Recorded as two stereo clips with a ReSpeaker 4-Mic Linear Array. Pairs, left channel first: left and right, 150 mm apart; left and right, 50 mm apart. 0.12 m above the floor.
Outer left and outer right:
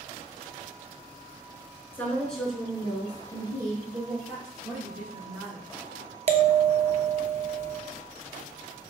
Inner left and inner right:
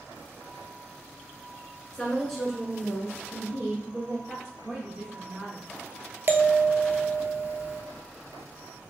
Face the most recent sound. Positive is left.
turn(degrees=-50)  # may be behind; listen again after turning